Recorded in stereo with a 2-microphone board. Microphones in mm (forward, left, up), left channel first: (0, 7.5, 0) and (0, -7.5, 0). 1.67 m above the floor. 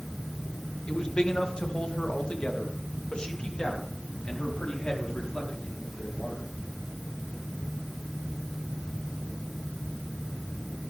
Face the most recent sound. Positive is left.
turn(degrees=60)  # may be behind; listen again after turning